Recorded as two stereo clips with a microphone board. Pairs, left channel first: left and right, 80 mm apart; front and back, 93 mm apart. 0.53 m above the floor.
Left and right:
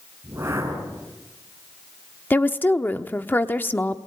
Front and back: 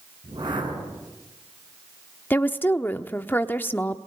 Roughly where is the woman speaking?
Ahead left.